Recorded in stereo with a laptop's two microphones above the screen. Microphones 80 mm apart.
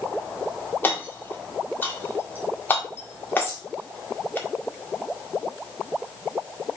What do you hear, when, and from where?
0.8 s hammering: 25° left (ahead or behind), 2.0 m
3.4 s a bird: 30° left (ahead or behind), 3 m